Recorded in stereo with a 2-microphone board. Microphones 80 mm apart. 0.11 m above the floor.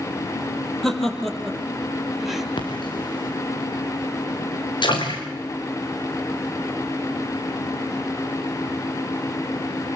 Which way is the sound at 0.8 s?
5° left (ahead or behind).